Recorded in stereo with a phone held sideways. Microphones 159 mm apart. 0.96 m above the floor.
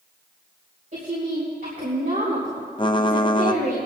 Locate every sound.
0.9 s a woman speaking: 65° right (ahead or behind), 3.5 m
2.8 s typing on a keyboard: 30° left (ahead or behind), 0.5 m